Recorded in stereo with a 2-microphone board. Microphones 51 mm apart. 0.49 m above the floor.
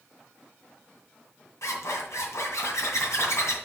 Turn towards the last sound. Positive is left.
turn(degrees=75)  # may be behind; listen again after turning